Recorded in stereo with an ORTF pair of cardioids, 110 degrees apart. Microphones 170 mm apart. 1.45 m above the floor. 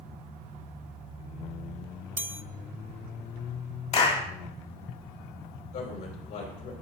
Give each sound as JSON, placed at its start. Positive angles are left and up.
{"t": 2.2, "sound": "a chime", "azimuth_deg": -10, "distance_m": 0.5}
{"t": 3.9, "sound": "a clap", "azimuth_deg": 40, "distance_m": 2.5}
{"t": 5.7, "sound": "a man speaking", "azimuth_deg": 70, "distance_m": 5.5}